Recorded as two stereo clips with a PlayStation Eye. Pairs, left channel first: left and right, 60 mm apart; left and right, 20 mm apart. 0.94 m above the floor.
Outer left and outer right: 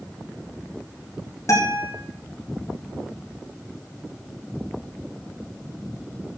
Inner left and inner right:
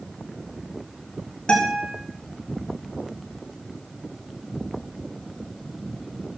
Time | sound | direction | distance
1.5 | a guitar | 60° left (ahead or behind) | 5 m